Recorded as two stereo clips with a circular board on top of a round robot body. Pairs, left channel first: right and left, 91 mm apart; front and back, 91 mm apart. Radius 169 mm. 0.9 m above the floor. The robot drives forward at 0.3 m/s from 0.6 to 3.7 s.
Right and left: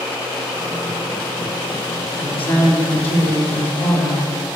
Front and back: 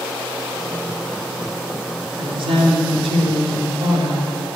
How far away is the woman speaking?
About 2.5 m.